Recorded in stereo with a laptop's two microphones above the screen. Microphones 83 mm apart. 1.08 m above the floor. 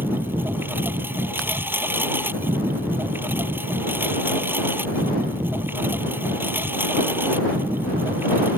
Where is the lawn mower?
25° right (ahead or behind).